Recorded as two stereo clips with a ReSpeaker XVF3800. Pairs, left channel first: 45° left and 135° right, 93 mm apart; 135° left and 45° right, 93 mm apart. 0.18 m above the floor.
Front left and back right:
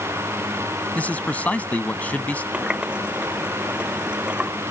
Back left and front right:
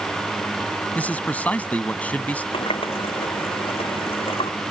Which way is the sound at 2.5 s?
145° left.